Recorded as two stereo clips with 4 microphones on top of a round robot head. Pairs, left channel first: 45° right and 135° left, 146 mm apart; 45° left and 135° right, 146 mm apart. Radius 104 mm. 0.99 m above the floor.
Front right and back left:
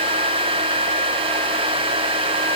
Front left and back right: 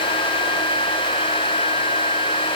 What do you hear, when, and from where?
Only background noise.